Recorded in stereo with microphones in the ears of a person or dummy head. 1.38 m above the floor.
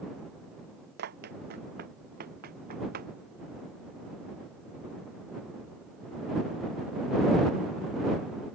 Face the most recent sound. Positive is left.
turn(degrees=-45)  # may be behind; listen again after turning